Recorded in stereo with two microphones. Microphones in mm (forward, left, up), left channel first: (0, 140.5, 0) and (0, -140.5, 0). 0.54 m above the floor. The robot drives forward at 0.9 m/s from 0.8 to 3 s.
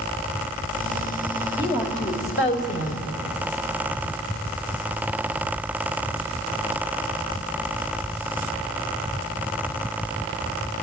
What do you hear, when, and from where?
1.6 s a woman speaking: 40° left (ahead or behind), 3 m; by 3.1 s 60° left (ahead or behind), 2 m